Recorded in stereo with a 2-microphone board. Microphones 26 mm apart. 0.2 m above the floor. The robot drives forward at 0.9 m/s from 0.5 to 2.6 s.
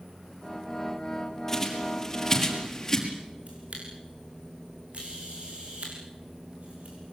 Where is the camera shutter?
55° right (ahead or behind), 7 m.